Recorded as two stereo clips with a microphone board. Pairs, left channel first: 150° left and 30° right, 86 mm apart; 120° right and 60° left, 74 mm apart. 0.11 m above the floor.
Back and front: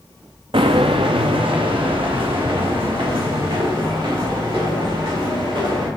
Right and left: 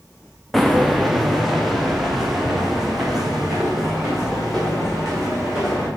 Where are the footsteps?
30° right, 0.6 m.